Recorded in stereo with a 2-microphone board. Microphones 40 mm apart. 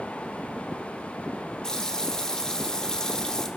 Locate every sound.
1.6 s a running tap: 15° left (ahead or behind), 1.4 m